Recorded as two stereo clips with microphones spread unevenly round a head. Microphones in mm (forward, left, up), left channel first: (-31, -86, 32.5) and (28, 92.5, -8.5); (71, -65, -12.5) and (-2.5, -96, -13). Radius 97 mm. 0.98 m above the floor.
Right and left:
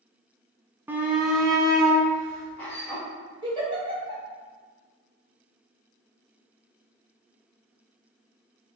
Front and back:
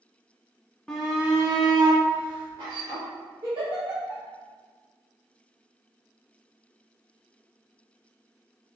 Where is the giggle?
140° left, 1.6 m.